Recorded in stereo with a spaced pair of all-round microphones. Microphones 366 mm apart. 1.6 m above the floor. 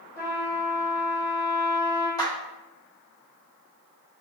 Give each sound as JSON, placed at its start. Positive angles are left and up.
{"t": 0.2, "sound": "a trumpet", "side_deg": -5, "distance_m": 1.3}
{"t": 2.2, "sound": "a clap", "side_deg": 10, "distance_m": 1.9}